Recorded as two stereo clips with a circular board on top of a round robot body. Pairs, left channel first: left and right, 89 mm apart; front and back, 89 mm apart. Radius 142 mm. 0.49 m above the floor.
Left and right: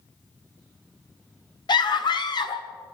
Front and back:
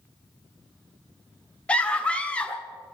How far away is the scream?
About 1.4 m.